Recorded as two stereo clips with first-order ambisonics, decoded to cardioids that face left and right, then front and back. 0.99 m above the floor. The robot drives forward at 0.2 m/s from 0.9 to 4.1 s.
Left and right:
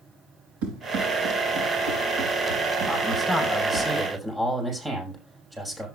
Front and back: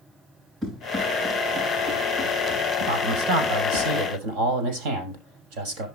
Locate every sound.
0.6 s running footsteps: 100° right, 7.5 m; by 3.9 s 120° right, 7 m
2.9 s a man speaking: 170° right, 6.5 m